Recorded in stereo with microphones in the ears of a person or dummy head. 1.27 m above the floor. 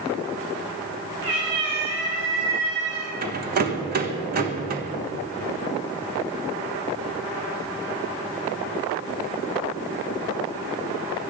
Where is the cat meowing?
65° right (ahead or behind), 5 m; by 3.1 s 70° right (ahead or behind), 6 m.